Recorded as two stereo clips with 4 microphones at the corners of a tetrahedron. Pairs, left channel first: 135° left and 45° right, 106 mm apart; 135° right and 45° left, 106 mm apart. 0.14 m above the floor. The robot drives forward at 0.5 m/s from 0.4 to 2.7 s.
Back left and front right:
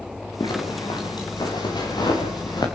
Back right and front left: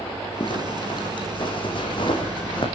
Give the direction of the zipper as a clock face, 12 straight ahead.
6 o'clock.